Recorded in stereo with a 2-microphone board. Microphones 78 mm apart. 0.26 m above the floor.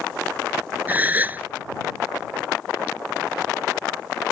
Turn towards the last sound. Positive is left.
turn(degrees=-25)  # may be behind; listen again after turning